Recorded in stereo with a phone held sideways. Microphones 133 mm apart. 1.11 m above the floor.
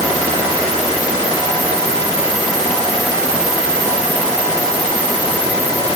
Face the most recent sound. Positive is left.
No sound to turn to.